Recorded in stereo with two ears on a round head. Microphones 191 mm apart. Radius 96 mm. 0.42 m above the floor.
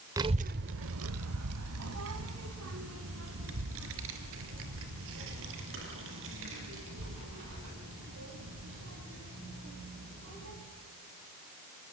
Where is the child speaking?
15° right (ahead or behind), 0.8 m; by 10.5 s 60° right (ahead or behind), 11.5 m.